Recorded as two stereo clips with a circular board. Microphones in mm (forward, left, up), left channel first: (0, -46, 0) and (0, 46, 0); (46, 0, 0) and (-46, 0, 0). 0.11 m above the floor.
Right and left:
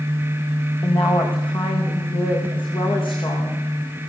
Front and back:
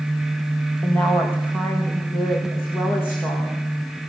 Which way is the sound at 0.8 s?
70° right.